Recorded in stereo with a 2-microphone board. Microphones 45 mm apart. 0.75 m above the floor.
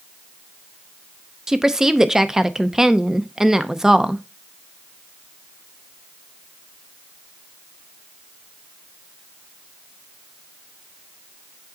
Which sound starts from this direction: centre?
A woman speaking, at 1.5 s.